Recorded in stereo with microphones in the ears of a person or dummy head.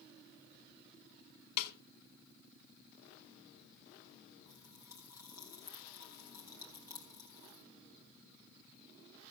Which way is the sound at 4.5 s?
25° left (ahead or behind).